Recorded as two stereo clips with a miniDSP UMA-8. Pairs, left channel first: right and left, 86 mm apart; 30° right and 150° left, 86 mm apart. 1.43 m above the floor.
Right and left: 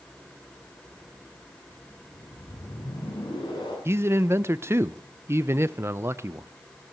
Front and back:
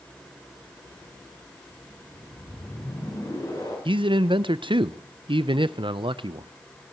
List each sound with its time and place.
2.1 s a whoosh: 65° right, 7.5 m
3.9 s a man speaking: 150° left, 0.7 m